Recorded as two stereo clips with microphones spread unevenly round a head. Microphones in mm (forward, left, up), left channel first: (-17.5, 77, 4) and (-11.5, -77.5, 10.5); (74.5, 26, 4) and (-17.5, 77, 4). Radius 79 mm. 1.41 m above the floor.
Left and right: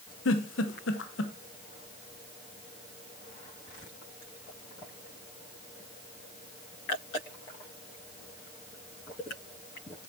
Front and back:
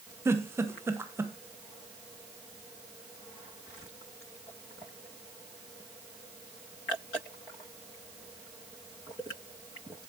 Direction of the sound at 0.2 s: 85° left.